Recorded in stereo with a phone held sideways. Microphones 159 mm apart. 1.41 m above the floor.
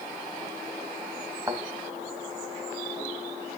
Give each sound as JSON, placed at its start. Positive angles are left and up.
{"t": 1.5, "sound": "a thud", "side_deg": -20, "distance_m": 3.0}